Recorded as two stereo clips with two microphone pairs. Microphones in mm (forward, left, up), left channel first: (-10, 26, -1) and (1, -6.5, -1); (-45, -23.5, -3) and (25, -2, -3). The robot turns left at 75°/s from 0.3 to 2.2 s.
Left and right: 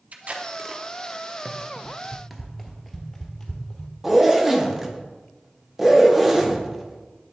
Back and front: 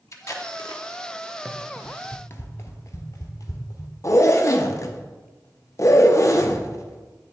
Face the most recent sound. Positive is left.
turn(degrees=-150)